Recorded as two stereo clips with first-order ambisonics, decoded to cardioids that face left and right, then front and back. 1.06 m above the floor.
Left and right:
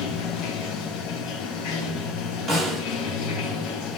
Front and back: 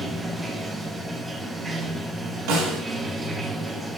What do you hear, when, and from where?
0.0 s running water: 100° left, 0.7 m
2.5 s a snare drum: 170° left, 3.5 m